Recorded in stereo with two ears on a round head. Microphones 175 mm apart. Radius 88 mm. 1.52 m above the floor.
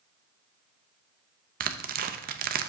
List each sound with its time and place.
1.6 s tearing paper: 50° right (ahead or behind), 0.6 m